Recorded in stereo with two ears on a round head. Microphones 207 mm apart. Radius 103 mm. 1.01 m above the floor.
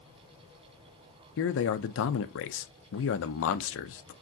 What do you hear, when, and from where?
1.4 s a man speaking: 55° left (ahead or behind), 0.6 m